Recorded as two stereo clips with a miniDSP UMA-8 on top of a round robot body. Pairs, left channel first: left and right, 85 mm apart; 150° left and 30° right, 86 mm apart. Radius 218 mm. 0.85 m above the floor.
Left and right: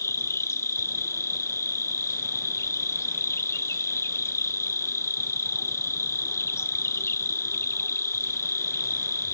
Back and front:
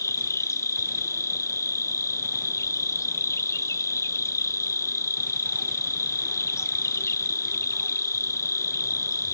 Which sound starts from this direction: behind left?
An insect, at 0.0 s.